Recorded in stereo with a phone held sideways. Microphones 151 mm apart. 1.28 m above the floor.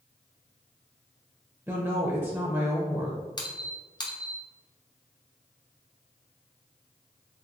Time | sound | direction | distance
1.7 | a woman speaking | 20° right (ahead or behind) | 0.5 m
3.4 | a squeak | 30° left (ahead or behind) | 0.7 m